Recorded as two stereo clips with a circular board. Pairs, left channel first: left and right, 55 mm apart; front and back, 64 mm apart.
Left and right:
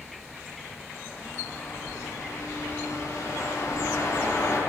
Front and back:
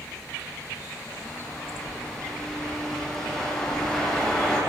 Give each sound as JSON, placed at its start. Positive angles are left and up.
{"t": 1.1, "sound": "a bird", "azimuth_deg": 85, "distance_m": 9.5}